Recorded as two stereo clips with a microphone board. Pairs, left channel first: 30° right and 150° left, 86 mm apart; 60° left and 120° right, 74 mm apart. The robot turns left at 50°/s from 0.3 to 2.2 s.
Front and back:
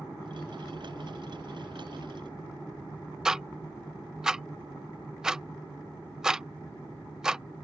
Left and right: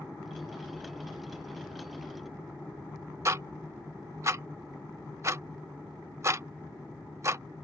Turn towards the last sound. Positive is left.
turn(degrees=-130)